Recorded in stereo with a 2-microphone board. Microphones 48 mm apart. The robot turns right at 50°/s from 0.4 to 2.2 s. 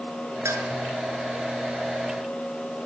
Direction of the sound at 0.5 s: 75° right (ahead or behind).